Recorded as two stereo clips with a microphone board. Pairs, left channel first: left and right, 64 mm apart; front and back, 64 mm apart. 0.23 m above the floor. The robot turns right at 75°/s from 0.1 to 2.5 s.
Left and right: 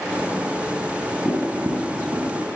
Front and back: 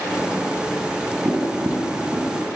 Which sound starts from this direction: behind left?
Tapping, at 1.2 s.